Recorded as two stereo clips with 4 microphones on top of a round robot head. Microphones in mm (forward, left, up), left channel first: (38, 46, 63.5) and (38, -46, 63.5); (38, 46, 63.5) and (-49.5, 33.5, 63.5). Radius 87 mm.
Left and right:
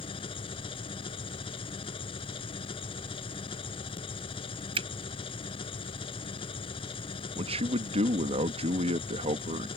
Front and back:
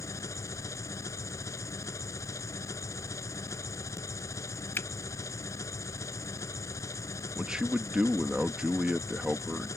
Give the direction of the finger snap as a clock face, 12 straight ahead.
2 o'clock.